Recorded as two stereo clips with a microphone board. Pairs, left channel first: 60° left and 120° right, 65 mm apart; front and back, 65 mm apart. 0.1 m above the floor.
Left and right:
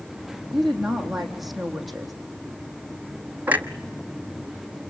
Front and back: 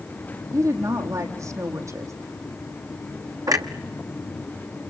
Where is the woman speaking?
150° left, 3.5 m.